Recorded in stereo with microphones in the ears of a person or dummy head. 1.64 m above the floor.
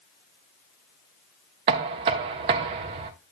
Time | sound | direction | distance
1.7 | knocking | 35° right (ahead or behind) | 0.7 m